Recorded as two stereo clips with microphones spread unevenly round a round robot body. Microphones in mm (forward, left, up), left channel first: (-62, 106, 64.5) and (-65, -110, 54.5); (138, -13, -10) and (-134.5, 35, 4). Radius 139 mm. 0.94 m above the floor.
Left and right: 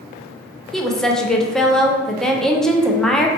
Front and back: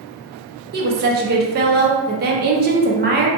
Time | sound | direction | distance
0.7 | a woman speaking | straight behind | 0.6 m